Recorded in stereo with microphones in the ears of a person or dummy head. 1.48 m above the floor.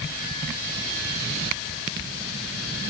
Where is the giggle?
I don't hear a giggle.